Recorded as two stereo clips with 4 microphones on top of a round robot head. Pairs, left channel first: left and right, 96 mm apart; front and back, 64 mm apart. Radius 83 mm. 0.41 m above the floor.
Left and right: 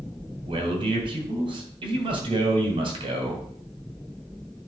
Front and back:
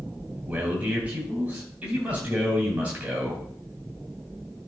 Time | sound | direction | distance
0.5 | a man speaking | 110° right | 2.5 m